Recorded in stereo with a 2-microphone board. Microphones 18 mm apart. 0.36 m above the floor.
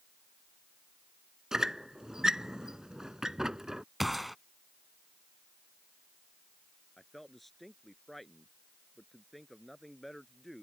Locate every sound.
1.5 s a squeak: 40° right (ahead or behind)
4.0 s a gunshot: 5° right (ahead or behind)
7.0 s a man speaking: 5° left (ahead or behind)